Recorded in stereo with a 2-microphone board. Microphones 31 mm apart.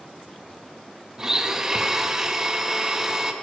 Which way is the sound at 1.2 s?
20° right (ahead or behind).